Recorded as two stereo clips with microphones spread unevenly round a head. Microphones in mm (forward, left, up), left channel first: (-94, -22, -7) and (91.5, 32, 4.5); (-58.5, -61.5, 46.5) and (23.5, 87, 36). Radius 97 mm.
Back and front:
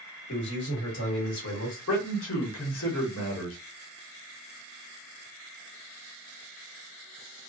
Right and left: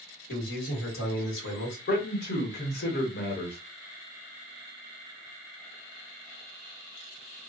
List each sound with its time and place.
0.3 s a man speaking: 130° right, 1.5 m
1.9 s a man speaking: 145° right, 1.2 m